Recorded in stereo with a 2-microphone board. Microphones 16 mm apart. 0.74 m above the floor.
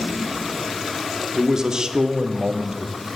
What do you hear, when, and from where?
1.3 s a man speaking: 35° right (ahead or behind), 1.5 m; by 2.9 s 45° right (ahead or behind), 1.3 m